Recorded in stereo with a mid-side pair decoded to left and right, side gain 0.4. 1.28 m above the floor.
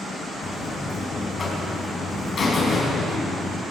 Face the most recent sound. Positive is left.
turn(degrees=55)